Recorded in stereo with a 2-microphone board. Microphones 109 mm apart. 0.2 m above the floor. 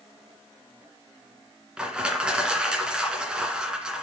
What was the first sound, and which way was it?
Crushing, 10° right (ahead or behind).